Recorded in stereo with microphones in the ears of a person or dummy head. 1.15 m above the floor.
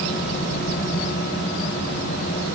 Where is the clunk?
I don't hear a clunk.